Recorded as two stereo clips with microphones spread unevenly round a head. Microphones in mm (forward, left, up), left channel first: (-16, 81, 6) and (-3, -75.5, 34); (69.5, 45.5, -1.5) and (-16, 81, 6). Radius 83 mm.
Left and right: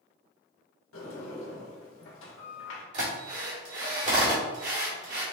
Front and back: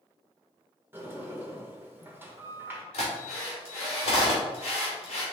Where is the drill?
45° right, 1.9 m.